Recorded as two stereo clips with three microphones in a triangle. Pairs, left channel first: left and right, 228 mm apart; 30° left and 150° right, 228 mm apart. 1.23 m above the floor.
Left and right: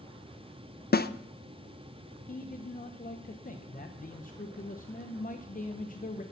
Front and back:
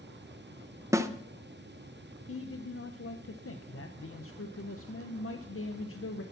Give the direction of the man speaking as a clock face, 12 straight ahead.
11 o'clock.